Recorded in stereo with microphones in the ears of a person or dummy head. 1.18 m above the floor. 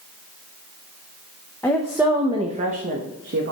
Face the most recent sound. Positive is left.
turn(degrees=-55)  # may be behind; listen again after turning